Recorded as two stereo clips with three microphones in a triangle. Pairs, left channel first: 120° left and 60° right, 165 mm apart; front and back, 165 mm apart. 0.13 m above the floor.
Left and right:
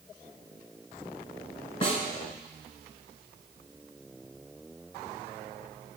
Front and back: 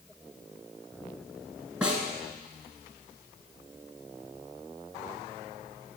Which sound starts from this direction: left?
A snare drum, at 1.8 s.